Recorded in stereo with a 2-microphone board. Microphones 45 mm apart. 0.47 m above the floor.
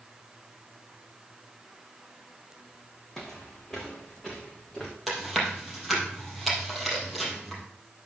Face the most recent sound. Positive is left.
turn(degrees=0)  # may be behind; listen again after turning